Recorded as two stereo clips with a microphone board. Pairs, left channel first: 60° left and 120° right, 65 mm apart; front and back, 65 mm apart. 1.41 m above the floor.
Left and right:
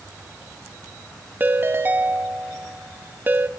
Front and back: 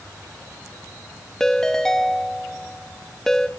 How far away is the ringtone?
About 0.9 m.